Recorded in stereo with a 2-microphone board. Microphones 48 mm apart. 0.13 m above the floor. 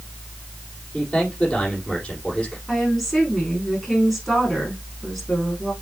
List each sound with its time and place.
0.9 s a man speaking: 25° left (ahead or behind), 5.5 m
2.7 s a woman speaking: 5° left (ahead or behind), 7.5 m